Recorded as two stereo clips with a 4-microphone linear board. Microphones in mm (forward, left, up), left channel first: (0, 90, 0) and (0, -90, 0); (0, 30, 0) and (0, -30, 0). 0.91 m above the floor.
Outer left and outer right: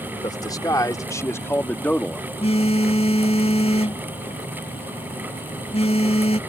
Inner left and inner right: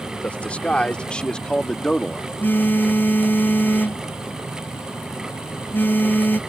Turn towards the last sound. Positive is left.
turn(degrees=35)  # may be behind; listen again after turning